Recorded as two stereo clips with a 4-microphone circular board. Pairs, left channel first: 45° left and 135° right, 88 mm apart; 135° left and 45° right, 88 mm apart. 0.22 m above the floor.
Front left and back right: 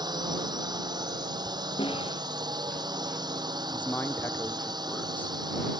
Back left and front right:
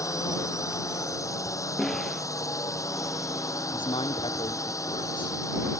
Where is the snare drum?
50° left.